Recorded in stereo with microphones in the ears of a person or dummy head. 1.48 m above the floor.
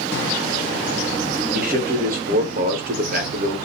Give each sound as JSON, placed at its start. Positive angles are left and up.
{"t": 1.5, "sound": "a man speaking", "side_deg": -45, "distance_m": 0.5}